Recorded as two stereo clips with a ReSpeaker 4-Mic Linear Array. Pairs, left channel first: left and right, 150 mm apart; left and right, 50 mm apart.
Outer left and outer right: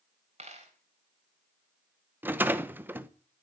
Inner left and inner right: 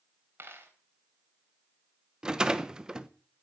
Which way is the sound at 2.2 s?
15° right (ahead or behind).